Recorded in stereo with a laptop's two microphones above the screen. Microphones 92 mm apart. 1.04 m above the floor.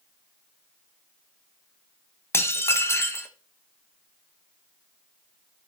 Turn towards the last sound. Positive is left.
turn(degrees=30)  # may be behind; listen again after turning